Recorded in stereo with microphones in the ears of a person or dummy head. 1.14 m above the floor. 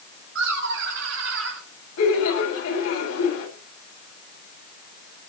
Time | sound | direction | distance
0.3 | laughter | 65° right (ahead or behind) | 2 m
2.0 | laughter | 80° left | 8 m